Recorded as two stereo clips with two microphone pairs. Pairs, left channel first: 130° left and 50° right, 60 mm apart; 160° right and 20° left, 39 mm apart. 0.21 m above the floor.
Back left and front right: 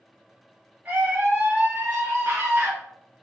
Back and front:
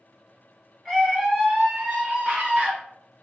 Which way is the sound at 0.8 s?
80° right.